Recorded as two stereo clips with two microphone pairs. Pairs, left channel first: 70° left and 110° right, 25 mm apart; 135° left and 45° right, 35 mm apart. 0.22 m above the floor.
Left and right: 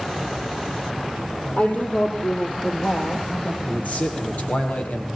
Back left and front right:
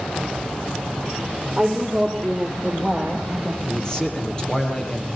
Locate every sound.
1.6 s a woman speaking: 35° left, 5 m; by 3.5 s 55° left, 5 m
3.6 s a man speaking: 70° left, 6.5 m